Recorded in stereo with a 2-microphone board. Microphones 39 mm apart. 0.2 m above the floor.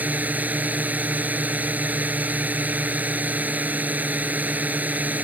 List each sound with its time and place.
0.0 s a drone: 45° right (ahead or behind)